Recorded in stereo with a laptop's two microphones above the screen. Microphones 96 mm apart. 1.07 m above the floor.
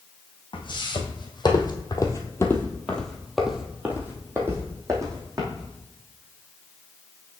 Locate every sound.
0.5 s footsteps: 55° left (ahead or behind), 1.9 m; by 5.7 s 40° right (ahead or behind), 2 m